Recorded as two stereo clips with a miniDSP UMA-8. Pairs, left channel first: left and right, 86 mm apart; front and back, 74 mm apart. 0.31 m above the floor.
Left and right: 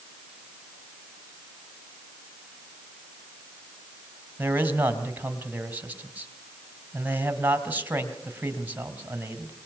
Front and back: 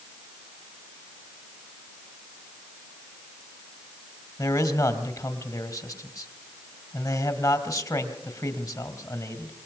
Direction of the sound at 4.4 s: 25° right.